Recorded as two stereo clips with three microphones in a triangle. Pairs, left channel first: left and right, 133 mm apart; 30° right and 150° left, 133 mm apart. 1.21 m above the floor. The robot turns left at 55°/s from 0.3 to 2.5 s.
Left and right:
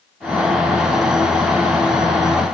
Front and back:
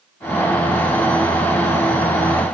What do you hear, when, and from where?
Only background noise.